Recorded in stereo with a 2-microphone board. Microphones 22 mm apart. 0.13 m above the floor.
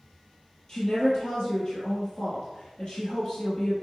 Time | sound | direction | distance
0.7 | a woman speaking | 45° left (ahead or behind) | 2.5 m